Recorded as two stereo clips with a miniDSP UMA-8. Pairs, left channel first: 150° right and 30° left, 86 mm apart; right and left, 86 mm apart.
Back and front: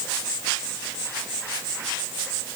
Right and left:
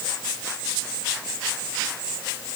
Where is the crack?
I don't hear a crack.